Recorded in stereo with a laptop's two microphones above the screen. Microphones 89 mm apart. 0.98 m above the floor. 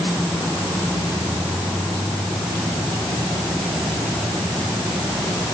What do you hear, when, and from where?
Only background noise.